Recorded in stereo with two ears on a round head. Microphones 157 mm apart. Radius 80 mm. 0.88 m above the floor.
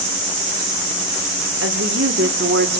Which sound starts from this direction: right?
A woman speaking, at 1.6 s.